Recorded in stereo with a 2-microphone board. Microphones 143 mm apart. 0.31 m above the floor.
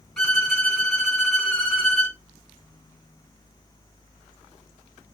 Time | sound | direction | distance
0.2 | a violin | centre (ahead or behind) | 1.9 m